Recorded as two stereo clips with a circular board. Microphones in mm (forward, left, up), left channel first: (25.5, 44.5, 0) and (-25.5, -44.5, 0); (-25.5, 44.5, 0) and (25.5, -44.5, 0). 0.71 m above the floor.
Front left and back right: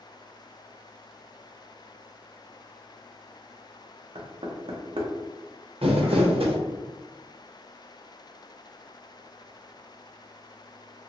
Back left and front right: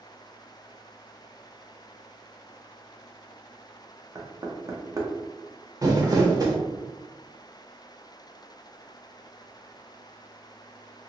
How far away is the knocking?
About 0.6 m.